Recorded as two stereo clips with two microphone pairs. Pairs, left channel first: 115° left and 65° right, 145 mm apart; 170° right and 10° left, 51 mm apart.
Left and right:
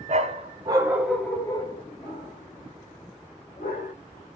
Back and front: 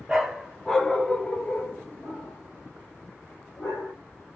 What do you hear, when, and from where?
0.1 s a dog barking: 65° right, 0.9 m; by 3.9 s 135° left, 2 m